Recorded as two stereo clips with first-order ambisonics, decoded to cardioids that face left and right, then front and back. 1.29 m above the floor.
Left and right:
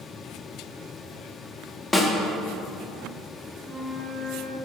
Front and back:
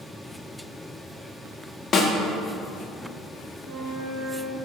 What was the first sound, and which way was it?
A snare drum, 30° left.